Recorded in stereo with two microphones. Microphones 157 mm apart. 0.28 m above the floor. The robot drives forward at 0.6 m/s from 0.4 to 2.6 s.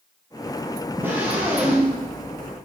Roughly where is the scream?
Centre.